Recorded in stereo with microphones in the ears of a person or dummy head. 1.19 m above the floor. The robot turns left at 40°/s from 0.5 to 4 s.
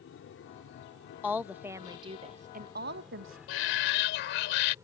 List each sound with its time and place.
0.0 s an aircraft: 65° left (ahead or behind); by 4.8 s 10° right (ahead or behind)
1.2 s a woman speaking: 10° left; by 3.4 s 75° right
3.5 s a shout: 80° left